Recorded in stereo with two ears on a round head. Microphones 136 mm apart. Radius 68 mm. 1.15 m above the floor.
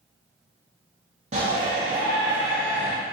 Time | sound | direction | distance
1.3 | a shout | 45° right (ahead or behind) | 1.1 m